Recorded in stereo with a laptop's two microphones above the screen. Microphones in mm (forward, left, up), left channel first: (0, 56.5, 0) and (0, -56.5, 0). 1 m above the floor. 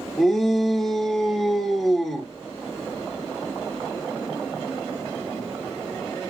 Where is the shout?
Centre (ahead or behind), 2.5 m.